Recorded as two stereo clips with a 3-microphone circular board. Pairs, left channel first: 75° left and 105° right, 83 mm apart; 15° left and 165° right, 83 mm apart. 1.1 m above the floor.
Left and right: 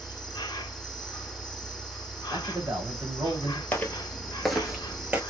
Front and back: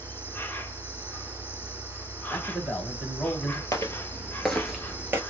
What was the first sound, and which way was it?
An insect, 75° left.